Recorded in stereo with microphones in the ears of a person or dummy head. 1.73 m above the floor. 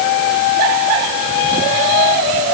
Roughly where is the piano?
I don't hear a piano.